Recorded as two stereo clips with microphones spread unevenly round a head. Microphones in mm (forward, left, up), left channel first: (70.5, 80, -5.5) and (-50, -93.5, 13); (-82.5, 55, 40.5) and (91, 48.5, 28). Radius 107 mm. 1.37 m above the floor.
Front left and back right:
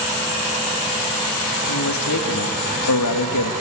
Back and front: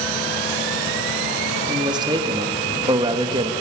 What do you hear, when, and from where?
1.7 s a man speaking: 65° left, 2.5 m